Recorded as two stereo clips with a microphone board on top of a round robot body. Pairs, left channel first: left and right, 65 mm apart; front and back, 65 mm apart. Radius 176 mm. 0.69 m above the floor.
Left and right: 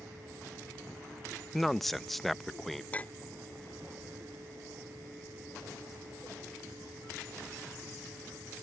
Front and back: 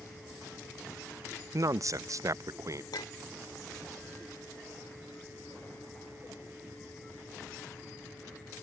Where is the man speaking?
175° left.